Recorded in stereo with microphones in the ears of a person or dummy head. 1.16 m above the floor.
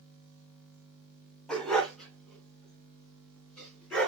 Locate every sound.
1.5 s a dog barking: 5° left (ahead or behind), 1.9 m